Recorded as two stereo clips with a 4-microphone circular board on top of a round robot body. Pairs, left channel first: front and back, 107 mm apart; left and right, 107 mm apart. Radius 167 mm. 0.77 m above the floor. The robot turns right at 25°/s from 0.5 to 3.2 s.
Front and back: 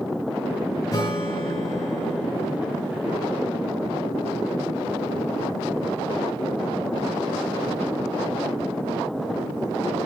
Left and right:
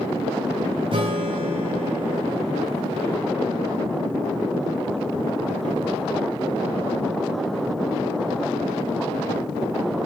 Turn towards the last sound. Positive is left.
turn(degrees=0)